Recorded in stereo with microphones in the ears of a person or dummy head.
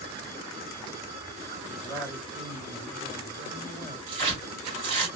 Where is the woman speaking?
35° right (ahead or behind), 2.5 m.